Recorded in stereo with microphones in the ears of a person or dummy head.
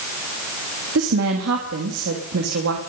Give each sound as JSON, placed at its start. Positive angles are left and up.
{"t": 0.9, "sound": "a woman speaking", "side_deg": -90, "distance_m": 3.0}